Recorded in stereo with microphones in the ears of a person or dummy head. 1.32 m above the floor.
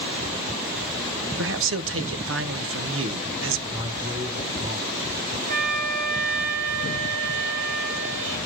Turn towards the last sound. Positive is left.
turn(degrees=-45)  # may be behind; listen again after turning